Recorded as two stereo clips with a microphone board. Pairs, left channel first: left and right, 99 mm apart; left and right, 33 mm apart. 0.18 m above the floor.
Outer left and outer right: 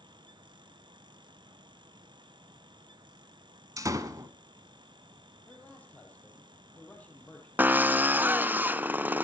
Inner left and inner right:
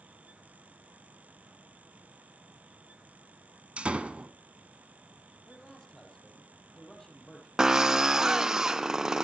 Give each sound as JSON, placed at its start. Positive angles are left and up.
{"t": 3.8, "sound": "a door slam", "side_deg": -35, "distance_m": 1.2}
{"t": 5.5, "sound": "a man speaking", "side_deg": 15, "distance_m": 6.0}
{"t": 7.6, "sound": "a drill", "side_deg": -20, "distance_m": 0.6}